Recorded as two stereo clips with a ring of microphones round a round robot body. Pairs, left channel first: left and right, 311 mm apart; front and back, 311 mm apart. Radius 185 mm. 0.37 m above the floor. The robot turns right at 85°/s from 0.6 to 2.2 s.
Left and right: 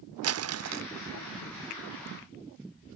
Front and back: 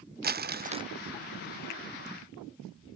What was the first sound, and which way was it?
Crumpling, 125° right.